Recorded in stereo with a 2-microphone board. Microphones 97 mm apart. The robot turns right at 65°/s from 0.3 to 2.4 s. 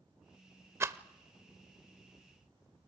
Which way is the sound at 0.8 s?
25° right (ahead or behind).